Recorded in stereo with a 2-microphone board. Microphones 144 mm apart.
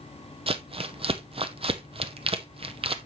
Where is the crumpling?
40° right (ahead or behind), 0.6 m.